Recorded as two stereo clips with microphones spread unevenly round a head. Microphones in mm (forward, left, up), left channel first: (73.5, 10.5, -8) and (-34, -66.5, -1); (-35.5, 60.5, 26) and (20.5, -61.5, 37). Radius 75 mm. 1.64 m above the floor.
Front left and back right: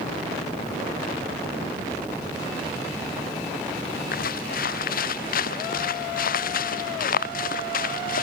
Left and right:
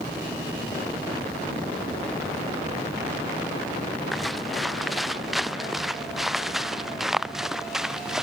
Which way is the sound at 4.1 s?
25° left.